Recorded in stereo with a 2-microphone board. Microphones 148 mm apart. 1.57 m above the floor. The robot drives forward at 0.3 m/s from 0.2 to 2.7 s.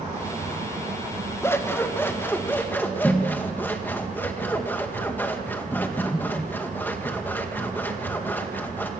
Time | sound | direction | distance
1.4 | scissors | 15° left (ahead or behind) | 1.2 m